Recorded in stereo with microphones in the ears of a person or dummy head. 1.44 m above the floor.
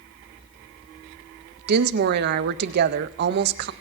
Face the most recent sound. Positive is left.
turn(degrees=-55)  # may be behind; listen again after turning